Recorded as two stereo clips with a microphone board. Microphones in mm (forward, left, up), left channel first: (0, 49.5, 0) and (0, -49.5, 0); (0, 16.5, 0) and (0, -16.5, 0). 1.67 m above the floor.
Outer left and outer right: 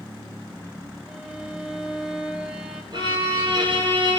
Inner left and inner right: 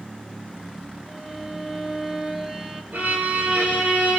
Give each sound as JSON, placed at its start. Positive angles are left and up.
{"t": 1.1, "sound": "a violin", "side_deg": -5, "distance_m": 1.6}
{"t": 2.9, "sound": "a violin", "side_deg": -55, "distance_m": 5.5}